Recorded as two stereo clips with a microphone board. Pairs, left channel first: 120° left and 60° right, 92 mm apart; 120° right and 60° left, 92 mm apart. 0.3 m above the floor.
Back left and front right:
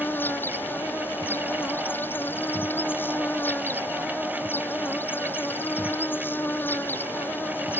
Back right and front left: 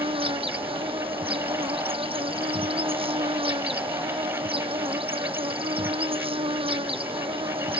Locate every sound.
0.0 s an insect: 50° left